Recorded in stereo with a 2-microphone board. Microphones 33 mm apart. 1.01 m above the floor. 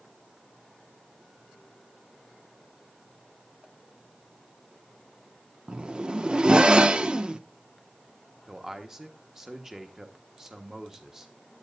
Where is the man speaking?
15° right (ahead or behind), 1.2 m.